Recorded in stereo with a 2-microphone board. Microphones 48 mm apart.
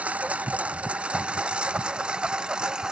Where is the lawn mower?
25° right (ahead or behind); by 2.9 s 15° right (ahead or behind).